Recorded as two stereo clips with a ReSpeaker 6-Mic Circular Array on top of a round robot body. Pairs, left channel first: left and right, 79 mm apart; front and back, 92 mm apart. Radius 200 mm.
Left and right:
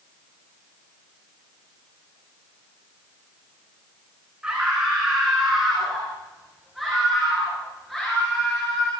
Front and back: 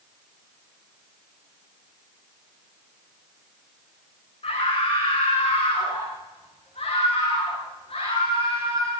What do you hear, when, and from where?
4.4 s a scream: 10° right, 6 m; by 8.9 s 5° left, 8.5 m